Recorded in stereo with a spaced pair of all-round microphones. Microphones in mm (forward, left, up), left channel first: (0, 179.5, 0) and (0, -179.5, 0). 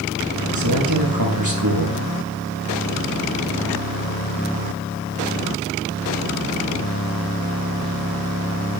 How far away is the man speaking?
About 6.5 m.